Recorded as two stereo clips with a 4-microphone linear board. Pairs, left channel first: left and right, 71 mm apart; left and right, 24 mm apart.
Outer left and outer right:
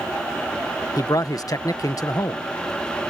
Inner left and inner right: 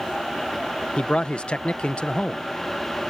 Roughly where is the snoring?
I don't hear snoring.